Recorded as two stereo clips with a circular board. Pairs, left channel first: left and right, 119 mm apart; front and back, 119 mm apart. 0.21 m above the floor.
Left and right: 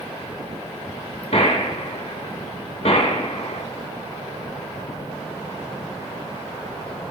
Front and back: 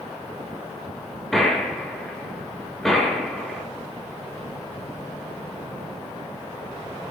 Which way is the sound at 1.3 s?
90° left.